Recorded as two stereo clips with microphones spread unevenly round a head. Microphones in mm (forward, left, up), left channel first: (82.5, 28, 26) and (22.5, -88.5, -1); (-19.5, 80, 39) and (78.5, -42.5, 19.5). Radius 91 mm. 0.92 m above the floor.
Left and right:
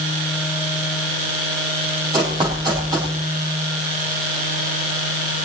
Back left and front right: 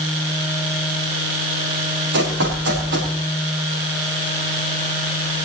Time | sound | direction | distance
2.1 | running footsteps | 55° right | 6.5 m